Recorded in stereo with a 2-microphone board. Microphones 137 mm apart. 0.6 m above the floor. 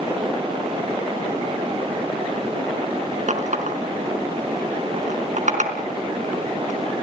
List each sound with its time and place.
3.3 s a running tap: 65° right (ahead or behind), 4 m